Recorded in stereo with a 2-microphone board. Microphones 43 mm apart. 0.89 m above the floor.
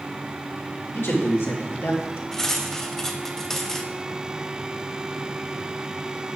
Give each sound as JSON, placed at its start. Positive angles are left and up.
{"t": 0.9, "sound": "a man speaking", "side_deg": 75, "distance_m": 2.5}
{"t": 2.3, "sound": "cutlery clinking", "side_deg": 10, "distance_m": 0.8}